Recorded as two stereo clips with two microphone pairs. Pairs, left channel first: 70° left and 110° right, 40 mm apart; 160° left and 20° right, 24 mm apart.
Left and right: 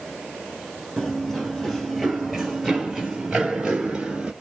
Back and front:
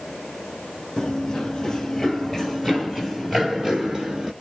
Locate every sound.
1.0 s running footsteps: 130° left, 1.8 m; by 4.3 s 50° right, 1.9 m